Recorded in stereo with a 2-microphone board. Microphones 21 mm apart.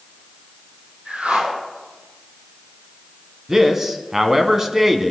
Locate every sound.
1.1 s a whoosh: 75° right (ahead or behind), 3 m
3.5 s a man speaking: 20° right (ahead or behind), 1.3 m